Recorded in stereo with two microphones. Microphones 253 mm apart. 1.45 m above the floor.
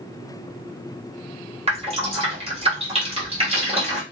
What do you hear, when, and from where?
1.7 s dripping: 25° right (ahead or behind), 1.2 m